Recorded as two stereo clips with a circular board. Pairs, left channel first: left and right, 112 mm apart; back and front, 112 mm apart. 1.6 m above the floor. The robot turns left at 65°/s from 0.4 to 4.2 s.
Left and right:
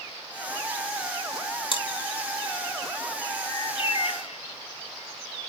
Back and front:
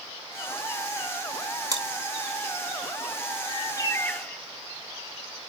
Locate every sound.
1.7 s chewing: 55° left, 2.5 m; by 1.8 s 45° left, 2.5 m
3.5 s a bird: 150° left, 0.6 m; by 4.4 s 100° left, 0.6 m